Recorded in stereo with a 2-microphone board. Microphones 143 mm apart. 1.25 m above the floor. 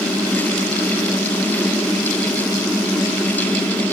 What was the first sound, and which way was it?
Only background noise.